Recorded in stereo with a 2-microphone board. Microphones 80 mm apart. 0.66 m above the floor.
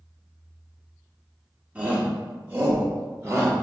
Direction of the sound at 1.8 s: 15° right (ahead or behind).